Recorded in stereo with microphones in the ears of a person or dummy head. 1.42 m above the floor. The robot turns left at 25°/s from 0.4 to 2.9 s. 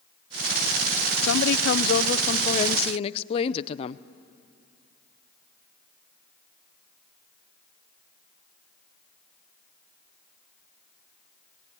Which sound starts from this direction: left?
A woman speaking, at 1.2 s.